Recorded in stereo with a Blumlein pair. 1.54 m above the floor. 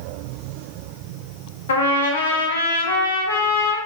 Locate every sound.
1.7 s a trumpet: 65° left, 0.7 m